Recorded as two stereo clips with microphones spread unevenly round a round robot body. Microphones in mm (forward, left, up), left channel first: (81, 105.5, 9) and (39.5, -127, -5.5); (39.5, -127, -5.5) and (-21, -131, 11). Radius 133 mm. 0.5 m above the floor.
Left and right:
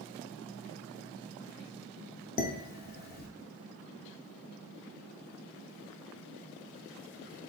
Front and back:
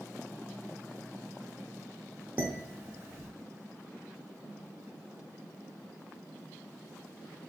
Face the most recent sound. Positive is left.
turn(degrees=110)